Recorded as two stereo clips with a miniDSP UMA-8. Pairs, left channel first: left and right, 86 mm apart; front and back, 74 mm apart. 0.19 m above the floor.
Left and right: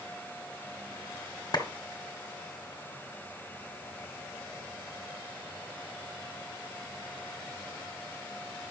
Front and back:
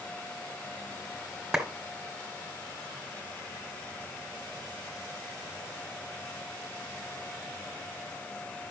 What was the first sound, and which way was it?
A clap, 105° left.